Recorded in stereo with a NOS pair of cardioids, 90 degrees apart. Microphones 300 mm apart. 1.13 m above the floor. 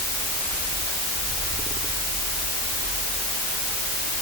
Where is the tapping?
I don't hear tapping.